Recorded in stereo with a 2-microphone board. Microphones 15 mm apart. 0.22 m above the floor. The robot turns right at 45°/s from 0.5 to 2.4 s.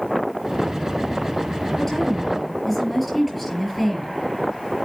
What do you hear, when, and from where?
1.8 s a woman speaking: 35° left (ahead or behind), 5 m; by 4.2 s 5° left (ahead or behind), 5 m